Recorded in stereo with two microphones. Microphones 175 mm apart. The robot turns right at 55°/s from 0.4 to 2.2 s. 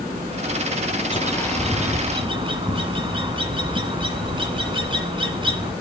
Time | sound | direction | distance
1.1 | a bird | 150° left | 1.6 m